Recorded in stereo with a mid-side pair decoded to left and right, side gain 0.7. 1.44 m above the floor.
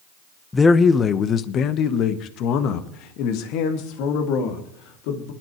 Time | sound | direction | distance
0.5 | a man speaking | 15° left | 0.9 m